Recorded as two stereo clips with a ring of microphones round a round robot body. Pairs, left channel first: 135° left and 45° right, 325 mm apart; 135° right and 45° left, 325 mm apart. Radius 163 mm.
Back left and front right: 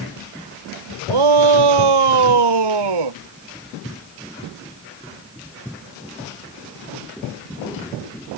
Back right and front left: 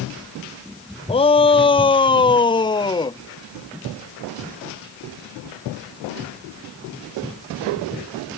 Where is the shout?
60° right; by 3.2 s 55° right.